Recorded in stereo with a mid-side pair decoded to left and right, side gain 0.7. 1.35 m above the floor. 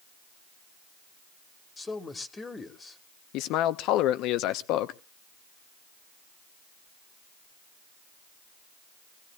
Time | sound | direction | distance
1.8 | a man speaking | 20° left | 1.5 m
3.3 | a man speaking | 60° left | 0.7 m